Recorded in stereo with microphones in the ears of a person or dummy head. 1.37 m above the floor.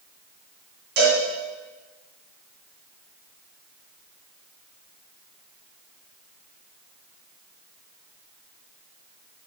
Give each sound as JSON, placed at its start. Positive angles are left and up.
{"t": 1.0, "sound": "a cowbell", "side_deg": -55, "distance_m": 2.5}